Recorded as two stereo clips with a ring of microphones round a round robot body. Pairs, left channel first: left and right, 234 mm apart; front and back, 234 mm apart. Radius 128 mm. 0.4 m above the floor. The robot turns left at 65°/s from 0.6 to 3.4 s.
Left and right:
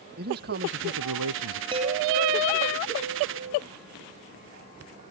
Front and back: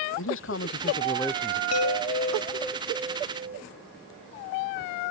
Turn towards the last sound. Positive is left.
turn(degrees=-125)